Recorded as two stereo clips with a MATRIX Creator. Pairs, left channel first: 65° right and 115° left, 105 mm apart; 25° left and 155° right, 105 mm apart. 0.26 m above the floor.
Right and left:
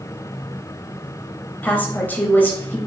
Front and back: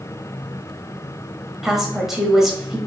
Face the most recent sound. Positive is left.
turn(degrees=-75)